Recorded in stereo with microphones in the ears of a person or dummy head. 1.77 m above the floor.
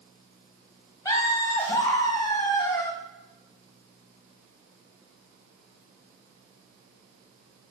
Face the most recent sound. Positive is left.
turn(degrees=20)  # may be behind; listen again after turning